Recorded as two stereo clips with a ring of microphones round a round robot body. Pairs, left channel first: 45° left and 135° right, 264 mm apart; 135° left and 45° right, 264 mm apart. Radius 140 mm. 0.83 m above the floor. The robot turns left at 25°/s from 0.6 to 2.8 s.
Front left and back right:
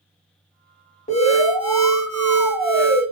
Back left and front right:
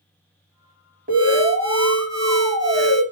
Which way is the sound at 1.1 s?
5° right.